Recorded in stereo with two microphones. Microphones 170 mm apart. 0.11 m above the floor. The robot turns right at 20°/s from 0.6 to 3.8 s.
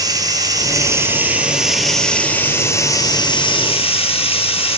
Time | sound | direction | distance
0.0 | running water | 25° right | 1.7 m